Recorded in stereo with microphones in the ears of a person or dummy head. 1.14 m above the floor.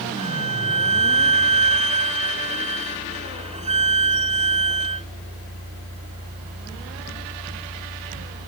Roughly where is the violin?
Right.